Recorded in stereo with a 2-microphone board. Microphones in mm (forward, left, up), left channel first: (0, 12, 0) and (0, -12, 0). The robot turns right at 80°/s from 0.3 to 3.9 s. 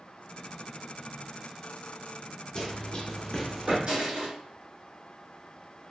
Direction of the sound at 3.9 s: 45° right (ahead or behind).